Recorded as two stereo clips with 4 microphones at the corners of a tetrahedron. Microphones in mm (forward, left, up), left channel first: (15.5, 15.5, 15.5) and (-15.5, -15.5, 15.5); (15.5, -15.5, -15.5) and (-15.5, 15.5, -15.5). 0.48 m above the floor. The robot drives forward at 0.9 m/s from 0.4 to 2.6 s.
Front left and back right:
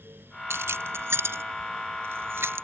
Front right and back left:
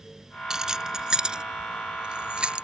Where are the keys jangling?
150° right; by 2.6 s 160° right.